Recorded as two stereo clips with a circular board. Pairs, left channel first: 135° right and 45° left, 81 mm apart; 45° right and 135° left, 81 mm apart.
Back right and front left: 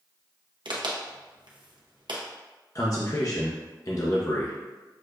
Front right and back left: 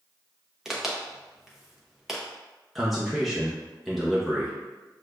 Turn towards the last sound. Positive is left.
turn(degrees=-135)